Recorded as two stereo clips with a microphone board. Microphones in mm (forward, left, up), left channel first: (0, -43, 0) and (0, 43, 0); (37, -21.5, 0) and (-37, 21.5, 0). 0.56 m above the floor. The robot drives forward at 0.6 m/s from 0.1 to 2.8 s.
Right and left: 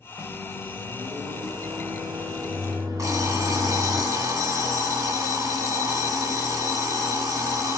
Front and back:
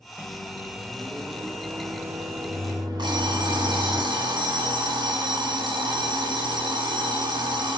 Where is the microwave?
65° left, 1.4 m; by 4.0 s 130° left, 1.7 m.